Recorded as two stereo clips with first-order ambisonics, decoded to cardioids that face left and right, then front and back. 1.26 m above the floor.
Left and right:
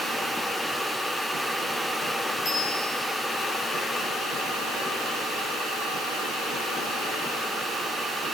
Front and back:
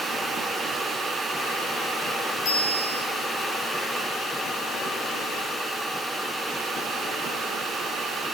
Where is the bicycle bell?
30° left, 8.5 m.